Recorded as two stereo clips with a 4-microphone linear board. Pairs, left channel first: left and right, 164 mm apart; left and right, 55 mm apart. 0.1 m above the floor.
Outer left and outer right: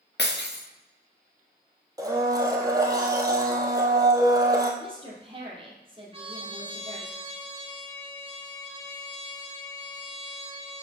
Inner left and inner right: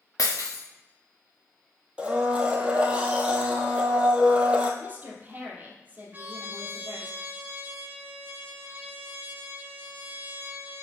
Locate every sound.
0.2 s breaking glass: 85° left, 1.3 m
2.0 s a blender: 20° right (ahead or behind), 1.2 m
4.8 s a woman speaking: 30° right (ahead or behind), 2.5 m
6.1 s a trumpet: 35° right (ahead or behind), 1.5 m